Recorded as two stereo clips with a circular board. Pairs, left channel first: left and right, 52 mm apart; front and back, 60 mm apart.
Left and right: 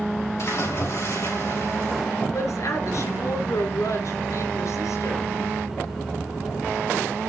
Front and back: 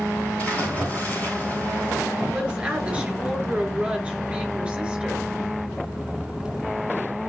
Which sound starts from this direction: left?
A woman speaking, at 2.3 s.